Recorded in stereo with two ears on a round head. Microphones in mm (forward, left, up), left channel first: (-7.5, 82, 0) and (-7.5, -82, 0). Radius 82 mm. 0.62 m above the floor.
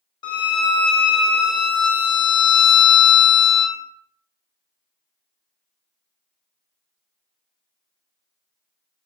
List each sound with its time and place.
0.2 s a violin: 25° left (ahead or behind), 0.8 m